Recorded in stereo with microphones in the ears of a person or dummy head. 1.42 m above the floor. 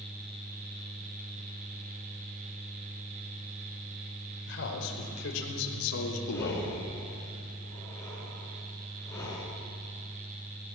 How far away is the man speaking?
About 5 m.